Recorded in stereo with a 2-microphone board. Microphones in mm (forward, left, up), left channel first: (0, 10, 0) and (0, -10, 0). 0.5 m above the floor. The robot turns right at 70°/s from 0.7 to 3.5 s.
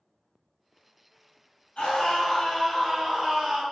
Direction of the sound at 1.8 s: 95° left.